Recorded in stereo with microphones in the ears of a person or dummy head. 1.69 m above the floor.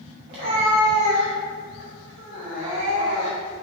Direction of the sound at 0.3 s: 25° right (ahead or behind).